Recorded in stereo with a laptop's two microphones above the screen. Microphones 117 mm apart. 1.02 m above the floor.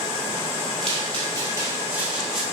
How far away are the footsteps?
About 1.6 m.